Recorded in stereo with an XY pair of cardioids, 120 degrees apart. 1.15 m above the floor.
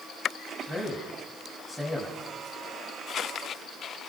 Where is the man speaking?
5° right, 6 m.